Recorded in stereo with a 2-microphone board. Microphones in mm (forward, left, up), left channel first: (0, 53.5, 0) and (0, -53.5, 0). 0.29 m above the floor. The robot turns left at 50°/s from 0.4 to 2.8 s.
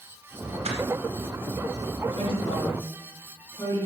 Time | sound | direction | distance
0.7 | crushing | 75° right (ahead or behind) | 1.9 m
2.2 | a woman speaking | 60° left (ahead or behind) | 4.5 m